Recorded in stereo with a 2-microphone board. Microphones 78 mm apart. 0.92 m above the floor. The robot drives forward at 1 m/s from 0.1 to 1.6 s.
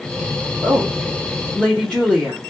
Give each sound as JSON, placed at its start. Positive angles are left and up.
{"t": 0.6, "sound": "a woman speaking", "side_deg": 5, "distance_m": 3.0}